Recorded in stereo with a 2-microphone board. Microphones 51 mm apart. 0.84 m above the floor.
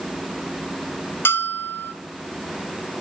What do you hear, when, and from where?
1.2 s a bell: 45° left (ahead or behind), 0.8 m